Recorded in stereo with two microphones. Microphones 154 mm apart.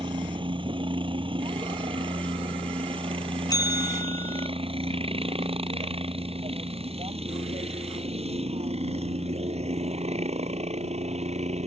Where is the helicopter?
30° right (ahead or behind); by 11.7 s 40° right (ahead or behind).